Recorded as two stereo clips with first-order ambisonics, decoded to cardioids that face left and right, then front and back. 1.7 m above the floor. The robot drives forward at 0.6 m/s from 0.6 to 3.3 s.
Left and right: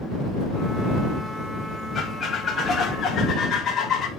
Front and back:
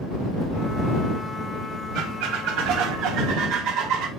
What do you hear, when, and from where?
1.9 s a squeak: 155° left, 1.4 m; by 4.1 s 165° left, 2 m